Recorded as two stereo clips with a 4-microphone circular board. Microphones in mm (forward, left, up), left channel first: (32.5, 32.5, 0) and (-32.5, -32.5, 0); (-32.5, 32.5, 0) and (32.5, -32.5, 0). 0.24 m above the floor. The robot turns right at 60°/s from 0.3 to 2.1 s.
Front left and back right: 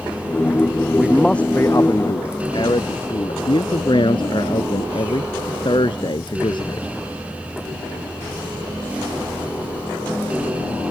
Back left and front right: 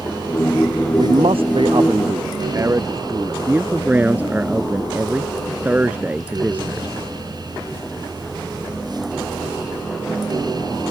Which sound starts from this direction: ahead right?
A man speaking, at 1.0 s.